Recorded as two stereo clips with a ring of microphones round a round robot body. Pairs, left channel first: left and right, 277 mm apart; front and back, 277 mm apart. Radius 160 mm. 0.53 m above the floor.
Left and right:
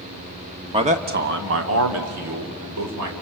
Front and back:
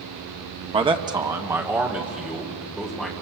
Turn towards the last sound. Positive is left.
turn(degrees=-90)